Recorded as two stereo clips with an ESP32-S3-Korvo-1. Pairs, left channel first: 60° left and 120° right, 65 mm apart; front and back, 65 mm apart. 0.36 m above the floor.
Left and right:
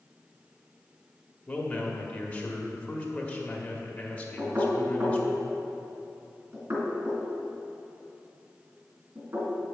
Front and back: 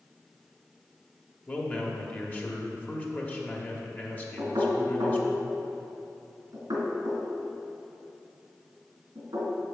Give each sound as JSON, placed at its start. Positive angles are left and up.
{"t": 1.5, "sound": "a man speaking", "azimuth_deg": 20, "distance_m": 1.0}
{"t": 4.4, "sound": "knocking", "azimuth_deg": -170, "distance_m": 2.5}